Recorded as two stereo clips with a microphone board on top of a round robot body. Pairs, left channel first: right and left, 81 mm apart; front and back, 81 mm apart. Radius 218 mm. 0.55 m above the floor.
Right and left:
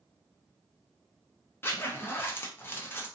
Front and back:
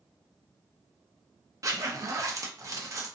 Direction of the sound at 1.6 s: 145° right.